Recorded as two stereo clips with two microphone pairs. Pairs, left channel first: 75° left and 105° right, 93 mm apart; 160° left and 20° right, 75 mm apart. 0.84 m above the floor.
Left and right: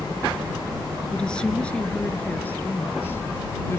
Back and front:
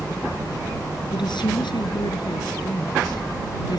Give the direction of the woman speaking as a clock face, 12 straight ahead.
7 o'clock.